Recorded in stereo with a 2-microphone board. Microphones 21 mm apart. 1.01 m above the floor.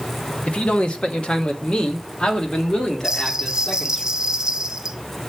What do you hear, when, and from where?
0.5 s a man speaking: 70° left (ahead or behind), 1.2 m; by 4.0 s 45° left (ahead or behind), 3 m
3.0 s a bell: 30° right (ahead or behind), 0.6 m